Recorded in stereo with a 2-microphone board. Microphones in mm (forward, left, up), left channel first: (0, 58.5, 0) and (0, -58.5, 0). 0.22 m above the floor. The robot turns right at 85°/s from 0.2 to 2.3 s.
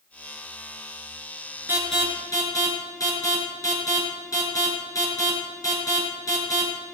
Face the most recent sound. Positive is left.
turn(degrees=30)  # may be behind; listen again after turning